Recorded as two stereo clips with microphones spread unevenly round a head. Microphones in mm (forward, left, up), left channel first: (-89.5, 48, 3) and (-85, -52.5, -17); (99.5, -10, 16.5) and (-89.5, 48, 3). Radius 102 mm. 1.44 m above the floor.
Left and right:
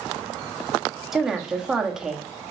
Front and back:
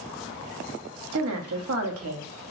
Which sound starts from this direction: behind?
A woman speaking, at 1.1 s.